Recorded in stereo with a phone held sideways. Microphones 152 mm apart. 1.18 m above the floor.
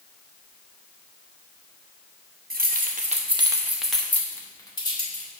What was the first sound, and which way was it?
Keys jangling, 75° right (ahead or behind).